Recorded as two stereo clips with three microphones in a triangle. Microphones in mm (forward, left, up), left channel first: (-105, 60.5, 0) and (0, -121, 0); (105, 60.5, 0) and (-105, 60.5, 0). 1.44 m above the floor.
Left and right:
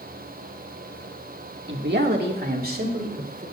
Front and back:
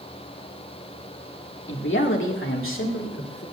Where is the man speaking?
30° right, 1.8 m; by 3.4 s 10° right, 3.5 m.